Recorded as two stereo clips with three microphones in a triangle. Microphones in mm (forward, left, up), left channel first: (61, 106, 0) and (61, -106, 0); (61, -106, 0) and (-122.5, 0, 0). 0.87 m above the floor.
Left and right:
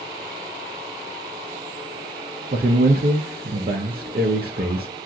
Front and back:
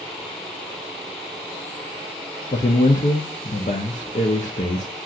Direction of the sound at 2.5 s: 75° right.